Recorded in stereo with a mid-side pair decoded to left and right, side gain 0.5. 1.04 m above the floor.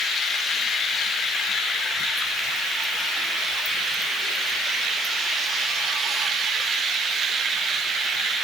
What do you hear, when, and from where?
Only background noise.